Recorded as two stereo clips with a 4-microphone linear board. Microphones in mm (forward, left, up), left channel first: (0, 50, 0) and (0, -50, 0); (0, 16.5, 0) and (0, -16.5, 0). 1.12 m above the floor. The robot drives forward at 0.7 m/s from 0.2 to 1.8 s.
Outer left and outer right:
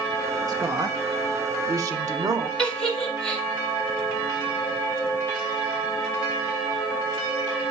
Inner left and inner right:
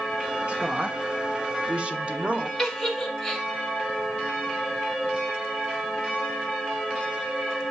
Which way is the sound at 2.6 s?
10° left (ahead or behind).